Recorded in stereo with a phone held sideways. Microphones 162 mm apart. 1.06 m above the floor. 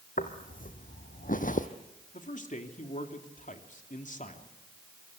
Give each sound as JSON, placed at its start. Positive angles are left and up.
{"t": 0.2, "sound": "footsteps", "side_deg": 55, "distance_m": 2.5}
{"t": 2.1, "sound": "a man speaking", "side_deg": 55, "distance_m": 2.5}